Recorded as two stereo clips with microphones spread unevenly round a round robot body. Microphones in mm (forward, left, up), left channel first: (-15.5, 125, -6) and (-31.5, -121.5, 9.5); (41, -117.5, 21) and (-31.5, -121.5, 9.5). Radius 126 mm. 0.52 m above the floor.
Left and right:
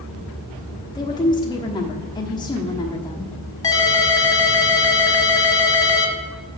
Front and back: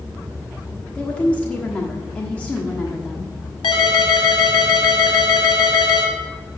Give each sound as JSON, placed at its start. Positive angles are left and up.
{"t": 0.9, "sound": "a woman speaking", "azimuth_deg": 65, "distance_m": 1.2}
{"t": 3.6, "sound": "a ringtone", "azimuth_deg": 10, "distance_m": 1.5}